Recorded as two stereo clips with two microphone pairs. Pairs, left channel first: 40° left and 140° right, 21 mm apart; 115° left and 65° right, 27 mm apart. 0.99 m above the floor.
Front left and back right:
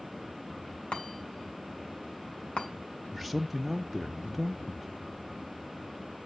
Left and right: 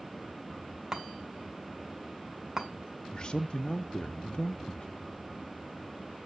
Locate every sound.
0.9 s a chime: 10° left, 3 m
3.1 s a man speaking: 135° left, 0.5 m